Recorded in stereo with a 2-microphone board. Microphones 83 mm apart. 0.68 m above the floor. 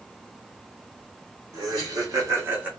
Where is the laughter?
55° right (ahead or behind), 1.6 m; by 2.7 s 15° right (ahead or behind), 0.8 m.